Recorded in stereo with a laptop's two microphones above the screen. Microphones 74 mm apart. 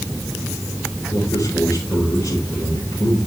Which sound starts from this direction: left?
A man speaking, at 1.1 s.